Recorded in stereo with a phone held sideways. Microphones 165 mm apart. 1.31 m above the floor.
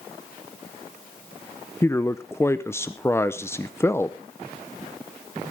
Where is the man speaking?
15° left (ahead or behind), 0.5 m.